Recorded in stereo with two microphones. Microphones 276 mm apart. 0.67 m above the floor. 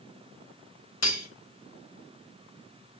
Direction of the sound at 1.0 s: 70° left (ahead or behind).